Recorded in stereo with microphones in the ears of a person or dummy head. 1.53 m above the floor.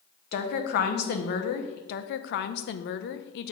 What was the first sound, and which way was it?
A woman speaking, 50° left (ahead or behind).